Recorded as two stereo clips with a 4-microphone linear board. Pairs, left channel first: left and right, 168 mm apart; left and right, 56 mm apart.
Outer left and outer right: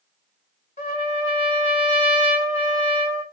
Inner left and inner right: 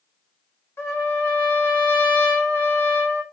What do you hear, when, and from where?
0.8 s a trumpet: 45° left (ahead or behind), 1.2 m